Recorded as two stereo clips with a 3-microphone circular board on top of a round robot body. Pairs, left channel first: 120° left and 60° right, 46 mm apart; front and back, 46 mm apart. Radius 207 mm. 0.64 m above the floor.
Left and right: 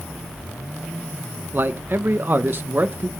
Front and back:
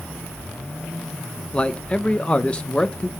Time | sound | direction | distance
1.5 | a man speaking | 55° right | 0.8 m